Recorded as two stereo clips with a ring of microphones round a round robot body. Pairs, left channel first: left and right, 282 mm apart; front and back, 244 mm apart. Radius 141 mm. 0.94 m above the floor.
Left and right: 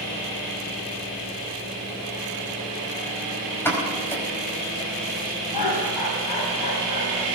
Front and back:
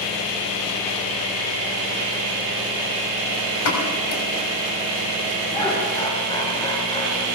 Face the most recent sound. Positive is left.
turn(degrees=75)